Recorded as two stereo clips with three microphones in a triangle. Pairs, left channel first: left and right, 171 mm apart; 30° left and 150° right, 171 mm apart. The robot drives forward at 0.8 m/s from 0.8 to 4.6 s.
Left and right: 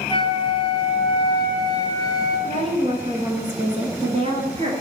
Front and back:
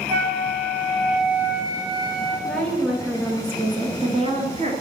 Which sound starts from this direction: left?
A flute, at 0.1 s.